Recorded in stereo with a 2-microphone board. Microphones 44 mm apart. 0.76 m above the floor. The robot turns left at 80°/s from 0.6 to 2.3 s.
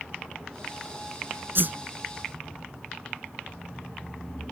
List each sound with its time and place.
1.6 s a whoosh: 55° right (ahead or behind); by 1.8 s 40° right (ahead or behind)